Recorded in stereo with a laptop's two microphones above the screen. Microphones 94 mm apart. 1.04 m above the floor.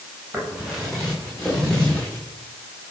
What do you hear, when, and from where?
0.3 s footsteps: 5° right (ahead or behind), 4 m; by 2.2 s 15° left (ahead or behind), 5.5 m